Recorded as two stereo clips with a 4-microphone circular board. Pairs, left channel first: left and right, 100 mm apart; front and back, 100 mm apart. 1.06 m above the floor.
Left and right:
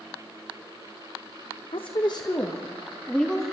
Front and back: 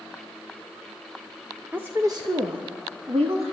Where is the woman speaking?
105° left, 0.9 m; by 3.5 s 175° left, 2 m.